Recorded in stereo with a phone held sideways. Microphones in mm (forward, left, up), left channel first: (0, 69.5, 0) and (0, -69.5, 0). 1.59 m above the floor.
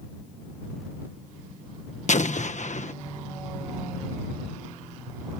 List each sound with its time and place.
2.1 s an explosion: 60° left (ahead or behind)